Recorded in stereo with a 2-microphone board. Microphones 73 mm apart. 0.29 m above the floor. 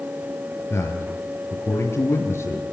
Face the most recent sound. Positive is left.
turn(degrees=35)  # may be behind; listen again after turning